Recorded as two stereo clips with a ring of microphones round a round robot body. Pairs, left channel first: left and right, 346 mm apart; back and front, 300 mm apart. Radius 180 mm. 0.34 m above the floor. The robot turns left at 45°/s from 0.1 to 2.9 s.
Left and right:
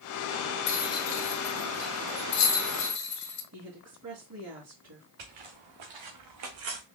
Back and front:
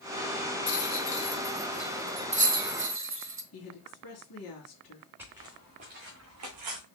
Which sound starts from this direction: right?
Footsteps, at 5.2 s.